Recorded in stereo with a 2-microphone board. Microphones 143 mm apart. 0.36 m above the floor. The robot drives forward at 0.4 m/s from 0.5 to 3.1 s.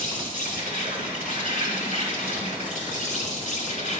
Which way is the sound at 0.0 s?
70° left (ahead or behind).